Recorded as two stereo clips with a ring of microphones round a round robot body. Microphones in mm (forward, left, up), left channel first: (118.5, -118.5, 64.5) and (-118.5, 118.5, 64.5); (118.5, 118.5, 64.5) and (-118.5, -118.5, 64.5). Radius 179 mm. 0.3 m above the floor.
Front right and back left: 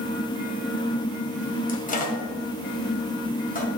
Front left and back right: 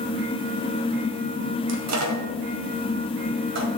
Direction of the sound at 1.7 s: 105° right.